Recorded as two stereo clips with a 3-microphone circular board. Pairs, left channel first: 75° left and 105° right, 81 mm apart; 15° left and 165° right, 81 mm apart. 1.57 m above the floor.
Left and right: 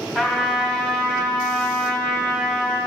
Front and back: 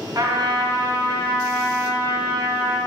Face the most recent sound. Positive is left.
turn(degrees=170)